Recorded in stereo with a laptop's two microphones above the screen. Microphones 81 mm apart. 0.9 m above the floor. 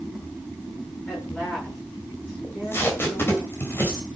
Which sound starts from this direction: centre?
A woman speaking, at 1.1 s.